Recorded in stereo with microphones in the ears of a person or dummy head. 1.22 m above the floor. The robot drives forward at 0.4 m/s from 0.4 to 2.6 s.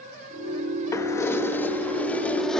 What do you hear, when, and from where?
0.9 s keys jangling: 25° left (ahead or behind); by 2.6 s 15° left (ahead or behind)